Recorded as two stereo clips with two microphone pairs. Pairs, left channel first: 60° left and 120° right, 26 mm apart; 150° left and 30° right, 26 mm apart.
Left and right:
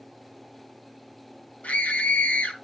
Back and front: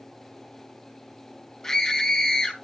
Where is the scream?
80° left, 3.5 m.